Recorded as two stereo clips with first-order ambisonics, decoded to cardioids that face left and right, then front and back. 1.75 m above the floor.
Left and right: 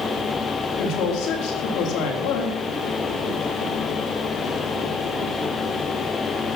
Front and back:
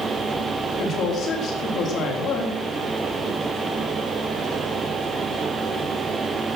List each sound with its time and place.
0.8 s a woman speaking: 55° left, 4 m